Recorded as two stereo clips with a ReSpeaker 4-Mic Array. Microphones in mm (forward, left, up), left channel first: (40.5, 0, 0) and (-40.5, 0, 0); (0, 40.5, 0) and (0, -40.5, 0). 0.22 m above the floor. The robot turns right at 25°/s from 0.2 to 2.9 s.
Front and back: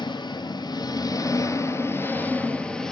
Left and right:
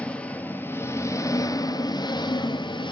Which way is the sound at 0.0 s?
15° left.